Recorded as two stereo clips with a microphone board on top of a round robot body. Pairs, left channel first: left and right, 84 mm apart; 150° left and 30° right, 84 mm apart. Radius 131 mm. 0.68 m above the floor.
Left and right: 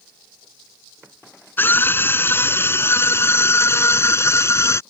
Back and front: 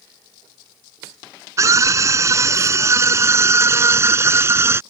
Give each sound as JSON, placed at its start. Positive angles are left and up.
{"t": 1.6, "sound": "a scream", "azimuth_deg": 25}